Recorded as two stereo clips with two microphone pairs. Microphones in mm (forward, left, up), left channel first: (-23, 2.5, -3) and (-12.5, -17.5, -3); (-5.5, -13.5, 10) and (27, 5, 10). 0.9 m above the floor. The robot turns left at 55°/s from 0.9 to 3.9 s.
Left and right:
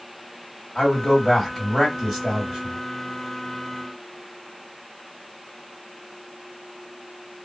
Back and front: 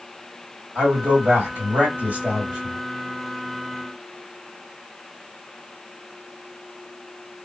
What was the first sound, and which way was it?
A man speaking, 50° left.